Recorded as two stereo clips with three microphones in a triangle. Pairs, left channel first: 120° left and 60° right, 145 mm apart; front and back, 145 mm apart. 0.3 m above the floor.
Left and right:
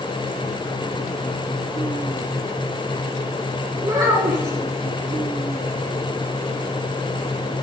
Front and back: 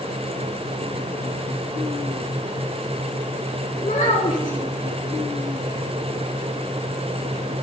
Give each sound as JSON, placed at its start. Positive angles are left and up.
{"t": 3.8, "sound": "a child speaking", "azimuth_deg": 5, "distance_m": 2.5}